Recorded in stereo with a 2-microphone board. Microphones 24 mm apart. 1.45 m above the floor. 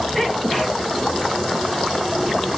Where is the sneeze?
15° left (ahead or behind), 1.3 m.